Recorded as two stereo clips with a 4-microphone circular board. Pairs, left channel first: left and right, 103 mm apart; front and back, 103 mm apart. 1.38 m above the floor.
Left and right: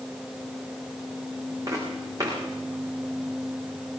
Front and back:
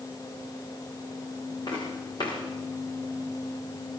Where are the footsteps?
35° right, 6 m.